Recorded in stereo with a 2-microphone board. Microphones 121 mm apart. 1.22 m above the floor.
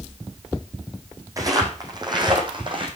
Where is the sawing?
I don't hear sawing.